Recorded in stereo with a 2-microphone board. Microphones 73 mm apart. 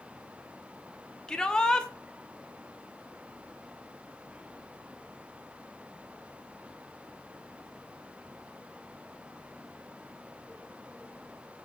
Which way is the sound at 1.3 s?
10° left (ahead or behind).